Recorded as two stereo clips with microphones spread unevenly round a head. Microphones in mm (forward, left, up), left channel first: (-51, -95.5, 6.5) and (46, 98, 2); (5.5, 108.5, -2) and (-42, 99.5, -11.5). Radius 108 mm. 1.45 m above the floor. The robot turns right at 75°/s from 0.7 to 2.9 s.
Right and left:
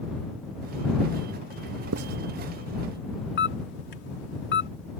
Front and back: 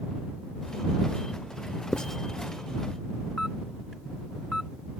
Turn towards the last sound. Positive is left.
turn(degrees=-75)